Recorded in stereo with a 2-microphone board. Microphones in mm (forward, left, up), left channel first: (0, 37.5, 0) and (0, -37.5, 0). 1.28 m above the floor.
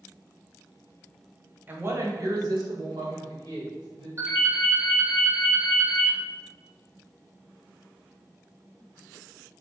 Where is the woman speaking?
25° right (ahead or behind), 0.6 m; by 4.1 s 85° right, 1.5 m.